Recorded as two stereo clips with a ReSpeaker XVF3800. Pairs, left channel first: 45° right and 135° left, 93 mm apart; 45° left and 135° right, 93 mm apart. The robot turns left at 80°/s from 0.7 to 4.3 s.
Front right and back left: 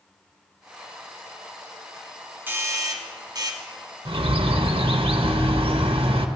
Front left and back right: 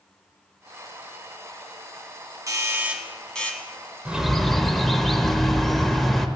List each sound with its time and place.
2.5 s a doorbell: 165° right, 1.2 m; by 3.6 s 100° left, 1.2 m
4.0 s a bird: 155° left, 0.7 m; by 6.3 s 135° left, 0.7 m